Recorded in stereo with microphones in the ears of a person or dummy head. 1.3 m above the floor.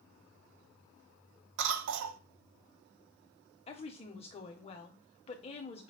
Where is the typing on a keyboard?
No typing on a keyboard in this recording.